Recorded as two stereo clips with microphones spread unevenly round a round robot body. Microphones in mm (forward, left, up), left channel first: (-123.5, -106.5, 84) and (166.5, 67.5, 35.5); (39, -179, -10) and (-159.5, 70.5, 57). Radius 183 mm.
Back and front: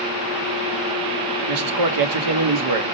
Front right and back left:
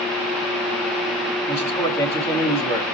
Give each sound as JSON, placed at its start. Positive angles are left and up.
{"t": 1.5, "sound": "a man speaking", "azimuth_deg": 30, "distance_m": 1.3}